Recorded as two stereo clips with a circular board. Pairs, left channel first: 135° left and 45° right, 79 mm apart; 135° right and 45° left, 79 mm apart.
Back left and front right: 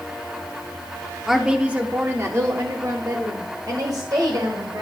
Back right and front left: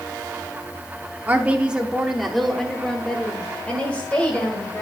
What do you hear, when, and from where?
1.3 s a woman speaking: 40° left, 0.7 m; by 4.8 s 65° right, 1.9 m